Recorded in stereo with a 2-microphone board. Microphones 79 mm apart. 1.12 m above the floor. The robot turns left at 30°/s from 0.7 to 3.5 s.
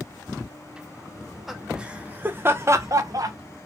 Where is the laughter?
5° left (ahead or behind), 0.5 m; by 3.4 s 55° right (ahead or behind), 0.5 m.